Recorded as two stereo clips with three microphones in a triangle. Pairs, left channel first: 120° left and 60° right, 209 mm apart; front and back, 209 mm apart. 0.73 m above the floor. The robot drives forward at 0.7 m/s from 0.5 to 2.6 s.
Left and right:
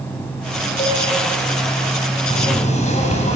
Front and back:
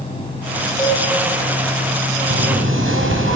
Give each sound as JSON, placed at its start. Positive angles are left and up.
{"t": 0.8, "sound": "a cowbell", "azimuth_deg": 75, "distance_m": 9.0}
{"t": 2.3, "sound": "knocking", "azimuth_deg": 175, "distance_m": 5.0}